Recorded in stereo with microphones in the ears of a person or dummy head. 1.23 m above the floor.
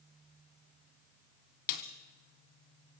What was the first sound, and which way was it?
A snare drum, 50° left (ahead or behind).